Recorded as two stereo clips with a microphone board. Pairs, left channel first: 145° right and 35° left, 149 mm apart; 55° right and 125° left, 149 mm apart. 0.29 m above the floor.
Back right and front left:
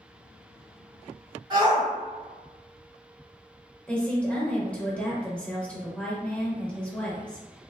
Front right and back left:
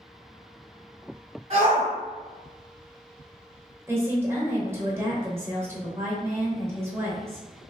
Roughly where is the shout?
Left.